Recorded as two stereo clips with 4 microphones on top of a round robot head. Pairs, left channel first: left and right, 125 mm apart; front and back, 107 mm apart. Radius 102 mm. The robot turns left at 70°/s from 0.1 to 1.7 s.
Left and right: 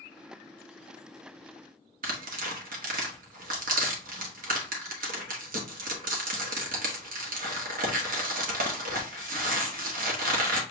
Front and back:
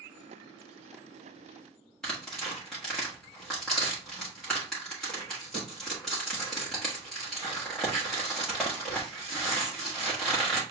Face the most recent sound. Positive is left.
turn(degrees=-90)